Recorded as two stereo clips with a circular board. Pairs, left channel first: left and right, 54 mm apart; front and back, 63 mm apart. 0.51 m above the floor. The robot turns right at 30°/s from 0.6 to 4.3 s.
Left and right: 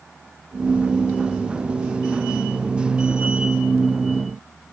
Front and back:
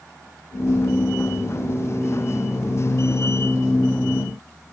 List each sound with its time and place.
Only background noise.